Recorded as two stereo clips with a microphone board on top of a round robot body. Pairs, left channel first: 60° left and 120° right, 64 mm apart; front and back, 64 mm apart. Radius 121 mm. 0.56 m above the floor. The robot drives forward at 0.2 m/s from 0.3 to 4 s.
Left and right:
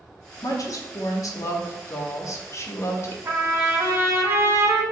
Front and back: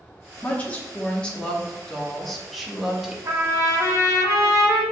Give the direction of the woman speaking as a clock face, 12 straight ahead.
10 o'clock.